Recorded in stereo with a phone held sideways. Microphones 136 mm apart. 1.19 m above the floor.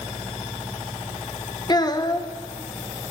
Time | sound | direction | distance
1.7 | a child speaking | 30° left (ahead or behind) | 0.7 m